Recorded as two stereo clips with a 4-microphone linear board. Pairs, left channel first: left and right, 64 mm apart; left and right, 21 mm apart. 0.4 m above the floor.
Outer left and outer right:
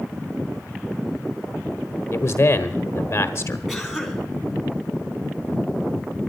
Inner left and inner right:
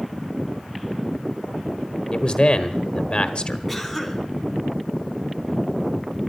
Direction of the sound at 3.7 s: Centre (ahead or behind).